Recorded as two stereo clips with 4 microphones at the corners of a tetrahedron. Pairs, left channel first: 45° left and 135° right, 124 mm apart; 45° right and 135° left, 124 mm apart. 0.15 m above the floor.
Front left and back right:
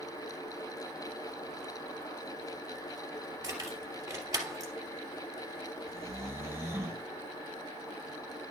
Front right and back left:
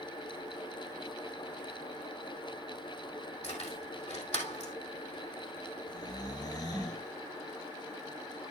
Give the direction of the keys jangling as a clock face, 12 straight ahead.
2 o'clock.